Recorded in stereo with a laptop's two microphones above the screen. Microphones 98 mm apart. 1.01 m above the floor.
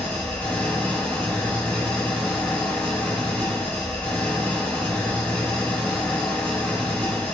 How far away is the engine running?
About 3.5 m.